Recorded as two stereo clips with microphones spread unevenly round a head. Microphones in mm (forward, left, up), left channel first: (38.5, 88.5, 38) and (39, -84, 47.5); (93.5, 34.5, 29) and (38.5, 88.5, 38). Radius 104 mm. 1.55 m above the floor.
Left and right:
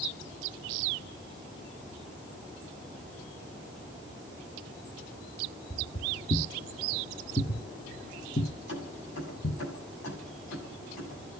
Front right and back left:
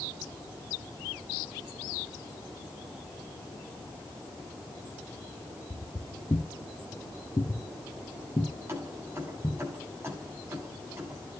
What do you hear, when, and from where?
5.7 s footsteps: 20° left, 2.5 m; by 9.6 s 30° left, 5.5 m
8.7 s keys jangling: 80° left, 8.5 m